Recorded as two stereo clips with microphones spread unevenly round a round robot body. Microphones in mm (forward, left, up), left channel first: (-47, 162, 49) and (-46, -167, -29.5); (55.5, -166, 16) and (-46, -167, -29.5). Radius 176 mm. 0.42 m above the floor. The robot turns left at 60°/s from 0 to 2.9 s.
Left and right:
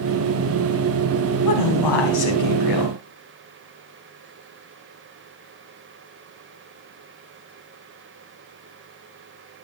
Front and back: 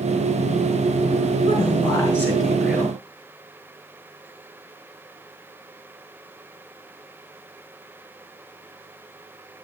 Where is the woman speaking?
130° left, 4 m; by 2.9 s 45° left, 4 m.